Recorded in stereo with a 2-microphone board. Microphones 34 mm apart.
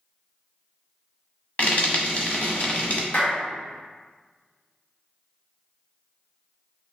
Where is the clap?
55° left (ahead or behind), 1.1 m.